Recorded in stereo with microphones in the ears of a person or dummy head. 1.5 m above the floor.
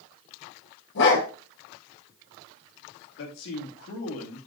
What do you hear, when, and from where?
0.9 s a dog barking: 70° left (ahead or behind), 6 m
3.2 s a man speaking: 70° left (ahead or behind), 2.5 m